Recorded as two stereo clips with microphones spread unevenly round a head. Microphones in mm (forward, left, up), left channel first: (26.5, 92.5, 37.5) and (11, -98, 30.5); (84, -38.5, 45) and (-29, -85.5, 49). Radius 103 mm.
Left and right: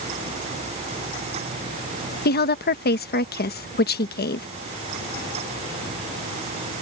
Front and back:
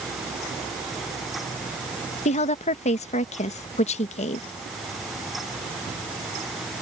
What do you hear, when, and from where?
2.2 s a woman speaking: 50° left